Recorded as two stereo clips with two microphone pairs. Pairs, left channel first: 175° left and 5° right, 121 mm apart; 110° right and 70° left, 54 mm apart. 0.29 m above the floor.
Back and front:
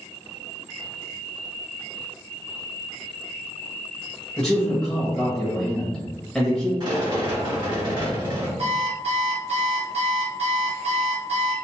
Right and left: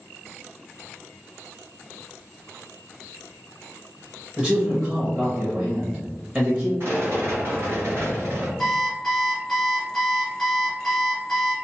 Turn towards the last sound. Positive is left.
turn(degrees=-25)